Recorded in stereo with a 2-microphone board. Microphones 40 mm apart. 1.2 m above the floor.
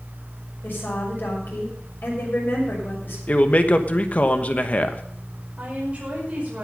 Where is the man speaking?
35° left (ahead or behind), 1.2 m.